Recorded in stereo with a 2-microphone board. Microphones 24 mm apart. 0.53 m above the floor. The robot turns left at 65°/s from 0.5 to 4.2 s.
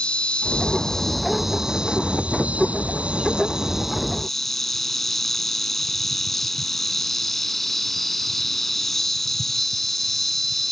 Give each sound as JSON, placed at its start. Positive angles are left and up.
{"t": 0.0, "sound": "an insect", "azimuth_deg": 45}